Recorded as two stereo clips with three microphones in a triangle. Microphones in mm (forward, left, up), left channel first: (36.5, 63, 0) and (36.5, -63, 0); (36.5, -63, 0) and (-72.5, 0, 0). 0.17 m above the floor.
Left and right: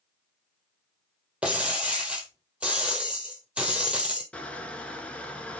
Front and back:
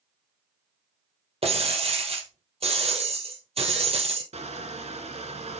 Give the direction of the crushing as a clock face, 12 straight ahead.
6 o'clock.